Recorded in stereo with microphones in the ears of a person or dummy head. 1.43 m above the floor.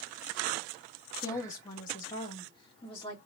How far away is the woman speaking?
About 0.8 m.